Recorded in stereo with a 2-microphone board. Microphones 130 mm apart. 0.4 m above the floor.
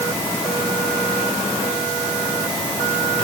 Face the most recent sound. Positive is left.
No sound to turn to.